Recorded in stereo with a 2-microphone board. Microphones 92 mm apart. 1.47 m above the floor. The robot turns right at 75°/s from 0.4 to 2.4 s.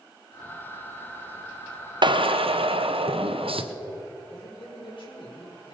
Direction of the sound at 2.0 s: 55° right (ahead or behind).